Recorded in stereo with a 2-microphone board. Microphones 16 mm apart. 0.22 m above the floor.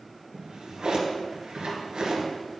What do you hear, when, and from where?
0.3 s a drawer: 60° right (ahead or behind), 2.0 m